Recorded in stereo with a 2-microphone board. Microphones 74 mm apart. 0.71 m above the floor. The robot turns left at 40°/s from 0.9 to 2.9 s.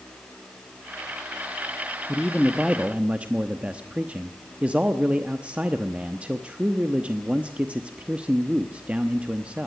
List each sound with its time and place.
2.1 s a man speaking: 10° left, 0.9 m; by 9.7 s 20° right, 0.9 m